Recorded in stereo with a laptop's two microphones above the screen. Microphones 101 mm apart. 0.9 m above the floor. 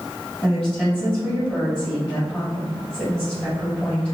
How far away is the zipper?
I don't hear a zipper.